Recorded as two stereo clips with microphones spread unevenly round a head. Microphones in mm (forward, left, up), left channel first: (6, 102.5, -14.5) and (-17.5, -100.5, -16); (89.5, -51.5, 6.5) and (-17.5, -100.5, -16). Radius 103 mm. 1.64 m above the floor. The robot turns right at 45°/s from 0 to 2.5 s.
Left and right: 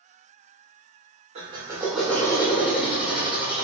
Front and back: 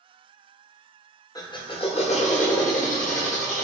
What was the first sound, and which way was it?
A drill, 35° right.